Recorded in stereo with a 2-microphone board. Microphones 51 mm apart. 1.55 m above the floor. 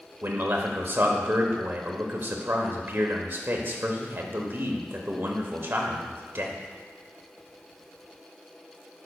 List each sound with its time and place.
0.2 s a man speaking: 45° right (ahead or behind), 1.0 m